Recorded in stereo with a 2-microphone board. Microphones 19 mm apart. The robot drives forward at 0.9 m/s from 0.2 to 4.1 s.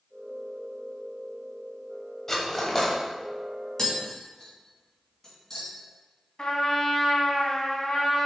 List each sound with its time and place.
2.3 s cutlery clinking: 15° left (ahead or behind), 1.1 m; by 3.0 s 10° left (ahead or behind), 1.6 m
3.8 s tapping: 25° left (ahead or behind), 2 m
6.4 s a trumpet: 35° left (ahead or behind), 1.5 m